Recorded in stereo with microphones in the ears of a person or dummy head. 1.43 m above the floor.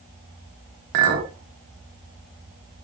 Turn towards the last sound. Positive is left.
turn(degrees=-50)  # may be behind; listen again after turning